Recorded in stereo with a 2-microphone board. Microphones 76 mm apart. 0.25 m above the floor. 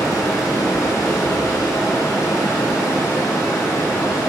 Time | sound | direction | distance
0.0 | running water | 50° left (ahead or behind) | 3 m